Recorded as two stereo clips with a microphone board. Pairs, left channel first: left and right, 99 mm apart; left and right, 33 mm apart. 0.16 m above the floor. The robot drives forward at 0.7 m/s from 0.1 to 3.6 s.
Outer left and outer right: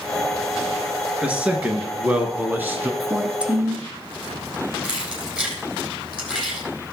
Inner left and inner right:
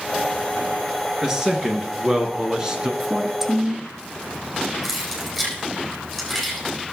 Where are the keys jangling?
10° right (ahead or behind), 3.5 m.